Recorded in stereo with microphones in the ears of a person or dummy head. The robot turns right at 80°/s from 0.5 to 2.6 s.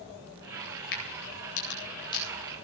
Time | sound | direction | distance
0.9 | a crack | 60° left (ahead or behind) | 8.5 m